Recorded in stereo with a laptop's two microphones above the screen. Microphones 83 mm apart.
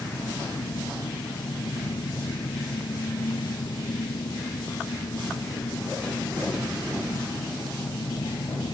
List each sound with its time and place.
0.0 s an engine running: 75° left (ahead or behind)